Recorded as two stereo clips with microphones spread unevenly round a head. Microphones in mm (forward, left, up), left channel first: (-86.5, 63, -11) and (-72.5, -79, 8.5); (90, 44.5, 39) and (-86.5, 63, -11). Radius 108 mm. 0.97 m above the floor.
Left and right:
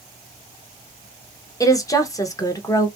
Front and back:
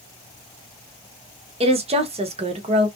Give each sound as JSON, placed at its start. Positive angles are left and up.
{"t": 1.6, "sound": "a woman speaking", "azimuth_deg": 150, "distance_m": 0.8}